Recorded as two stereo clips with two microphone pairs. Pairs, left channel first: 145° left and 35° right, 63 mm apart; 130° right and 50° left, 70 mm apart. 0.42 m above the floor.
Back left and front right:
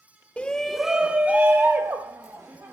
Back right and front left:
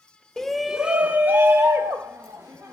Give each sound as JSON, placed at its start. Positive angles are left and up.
{"t": 0.4, "sound": "a shout", "azimuth_deg": 160, "distance_m": 0.8}